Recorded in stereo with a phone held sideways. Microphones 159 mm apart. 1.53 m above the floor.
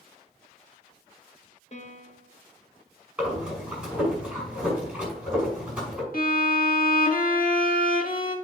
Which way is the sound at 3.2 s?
5° right (ahead or behind).